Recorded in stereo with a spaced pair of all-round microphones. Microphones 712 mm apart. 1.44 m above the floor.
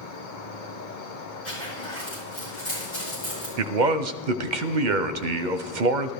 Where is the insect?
85° left, 1.1 m.